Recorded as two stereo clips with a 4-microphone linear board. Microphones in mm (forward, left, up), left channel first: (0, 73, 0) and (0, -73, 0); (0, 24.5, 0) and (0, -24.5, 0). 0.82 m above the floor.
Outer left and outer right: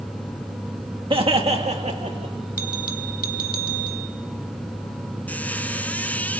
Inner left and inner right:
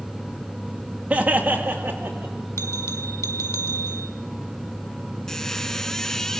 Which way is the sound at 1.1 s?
35° right (ahead or behind).